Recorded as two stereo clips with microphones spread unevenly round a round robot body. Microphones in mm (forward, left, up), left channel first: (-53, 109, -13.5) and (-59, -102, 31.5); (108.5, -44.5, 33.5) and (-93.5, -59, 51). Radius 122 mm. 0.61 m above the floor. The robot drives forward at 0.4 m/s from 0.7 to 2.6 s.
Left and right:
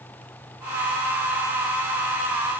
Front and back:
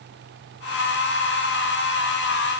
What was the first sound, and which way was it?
Only background noise.